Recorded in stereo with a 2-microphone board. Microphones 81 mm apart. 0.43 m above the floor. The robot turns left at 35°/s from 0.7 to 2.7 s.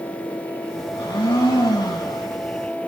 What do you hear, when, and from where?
0.9 s a blender: 100° left, 10 m; by 2.2 s 55° left, 10 m